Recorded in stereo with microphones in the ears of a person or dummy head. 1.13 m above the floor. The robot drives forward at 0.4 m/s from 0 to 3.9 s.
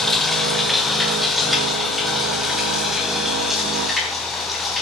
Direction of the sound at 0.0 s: 5° left (ahead or behind).